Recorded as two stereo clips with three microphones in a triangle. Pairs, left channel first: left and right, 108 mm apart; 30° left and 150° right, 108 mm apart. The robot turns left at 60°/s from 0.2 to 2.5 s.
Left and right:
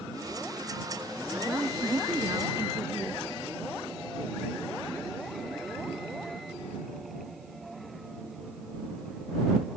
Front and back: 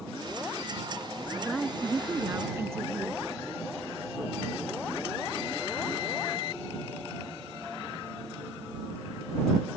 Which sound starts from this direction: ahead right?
A woman speaking, at 1.4 s.